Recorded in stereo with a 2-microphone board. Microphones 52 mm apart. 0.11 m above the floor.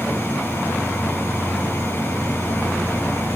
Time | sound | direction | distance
0.0 | an insect | 50° right (ahead or behind) | 5.5 m